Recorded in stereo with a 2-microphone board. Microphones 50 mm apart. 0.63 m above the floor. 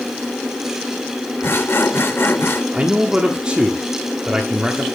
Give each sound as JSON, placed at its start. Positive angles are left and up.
{"t": 1.4, "sound": "sawing", "side_deg": 55, "distance_m": 0.9}
{"t": 2.7, "sound": "a man speaking", "side_deg": -15, "distance_m": 1.3}